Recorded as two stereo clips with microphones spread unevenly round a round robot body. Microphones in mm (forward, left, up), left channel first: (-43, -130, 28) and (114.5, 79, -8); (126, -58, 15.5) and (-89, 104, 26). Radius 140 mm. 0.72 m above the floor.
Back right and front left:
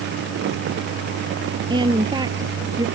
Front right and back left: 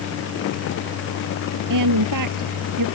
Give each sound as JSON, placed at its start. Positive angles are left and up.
{"t": 1.7, "sound": "a woman speaking", "azimuth_deg": 130}